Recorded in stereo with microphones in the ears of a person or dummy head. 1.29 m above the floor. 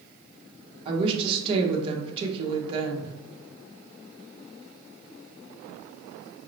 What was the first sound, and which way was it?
A woman speaking, 30° right (ahead or behind).